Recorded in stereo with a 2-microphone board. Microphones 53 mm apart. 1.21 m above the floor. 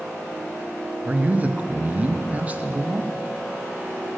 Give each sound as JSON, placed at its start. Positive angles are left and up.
{"t": 1.1, "sound": "a man speaking", "side_deg": -30, "distance_m": 0.5}